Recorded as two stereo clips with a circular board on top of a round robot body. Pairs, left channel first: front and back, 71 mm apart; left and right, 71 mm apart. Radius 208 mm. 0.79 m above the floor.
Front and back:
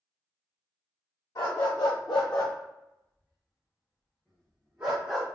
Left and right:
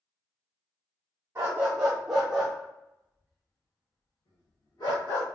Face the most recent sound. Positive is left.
turn(degrees=100)